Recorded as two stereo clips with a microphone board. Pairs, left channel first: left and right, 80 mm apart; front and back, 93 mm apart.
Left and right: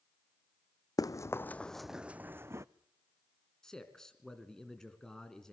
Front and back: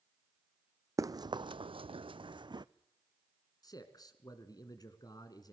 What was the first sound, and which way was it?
Running footsteps, 125° left.